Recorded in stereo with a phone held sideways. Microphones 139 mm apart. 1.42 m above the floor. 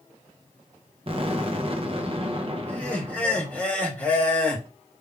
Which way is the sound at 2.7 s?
10° left (ahead or behind).